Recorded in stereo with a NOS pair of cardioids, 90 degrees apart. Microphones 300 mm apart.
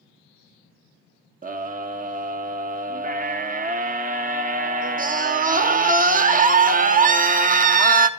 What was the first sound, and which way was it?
A scream, 30° right.